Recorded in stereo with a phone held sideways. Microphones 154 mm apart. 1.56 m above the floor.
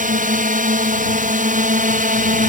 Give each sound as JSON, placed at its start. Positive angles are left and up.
{"t": 0.0, "sound": "a drone", "side_deg": -60}